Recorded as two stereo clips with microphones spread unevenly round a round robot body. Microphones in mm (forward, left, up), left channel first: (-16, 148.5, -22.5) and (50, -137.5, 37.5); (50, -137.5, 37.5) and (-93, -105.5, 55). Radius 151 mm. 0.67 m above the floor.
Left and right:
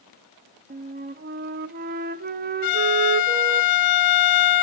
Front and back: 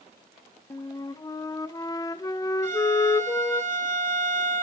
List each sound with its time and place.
0.7 s a flute: 25° right, 1.0 m
2.6 s a violin: 105° left, 0.8 m